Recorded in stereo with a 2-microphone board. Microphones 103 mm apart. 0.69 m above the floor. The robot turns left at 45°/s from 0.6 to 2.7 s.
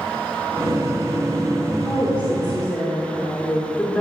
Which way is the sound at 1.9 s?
35° left.